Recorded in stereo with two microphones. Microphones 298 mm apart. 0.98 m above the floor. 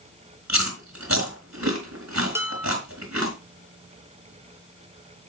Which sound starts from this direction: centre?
Dishes clattering, at 2.4 s.